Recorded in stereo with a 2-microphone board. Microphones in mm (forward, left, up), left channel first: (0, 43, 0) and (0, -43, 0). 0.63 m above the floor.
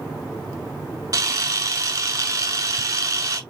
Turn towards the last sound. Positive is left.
turn(degrees=-45)  # may be behind; listen again after turning